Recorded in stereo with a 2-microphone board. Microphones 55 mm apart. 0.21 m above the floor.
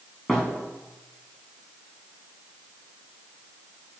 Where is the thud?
5° left (ahead or behind), 6 m.